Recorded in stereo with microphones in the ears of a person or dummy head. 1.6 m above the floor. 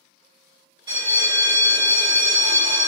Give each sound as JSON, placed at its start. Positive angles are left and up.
{"t": 0.9, "sound": "a bell", "side_deg": -25, "distance_m": 0.7}